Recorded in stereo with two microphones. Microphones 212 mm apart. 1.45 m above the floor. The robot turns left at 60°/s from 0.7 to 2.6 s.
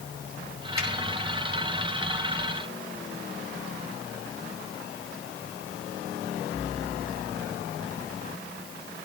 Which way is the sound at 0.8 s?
85° right.